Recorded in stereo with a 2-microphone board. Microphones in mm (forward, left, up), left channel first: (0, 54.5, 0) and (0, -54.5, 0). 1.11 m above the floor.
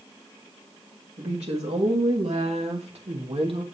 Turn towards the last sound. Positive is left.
turn(degrees=-55)  # may be behind; listen again after turning